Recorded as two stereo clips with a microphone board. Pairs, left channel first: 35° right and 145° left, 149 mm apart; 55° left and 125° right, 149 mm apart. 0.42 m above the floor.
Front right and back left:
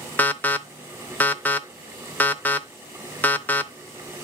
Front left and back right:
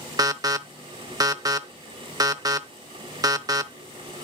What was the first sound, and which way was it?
An alarm, 100° right.